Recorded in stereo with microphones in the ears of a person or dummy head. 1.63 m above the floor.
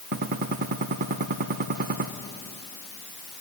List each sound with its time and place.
0.1 s a gunshot: 45° right (ahead or behind), 0.9 m